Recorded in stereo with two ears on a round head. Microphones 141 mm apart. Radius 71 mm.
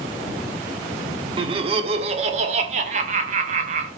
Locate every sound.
1.4 s laughter: 30° right (ahead or behind), 1.2 m; by 3.9 s 45° right (ahead or behind), 2 m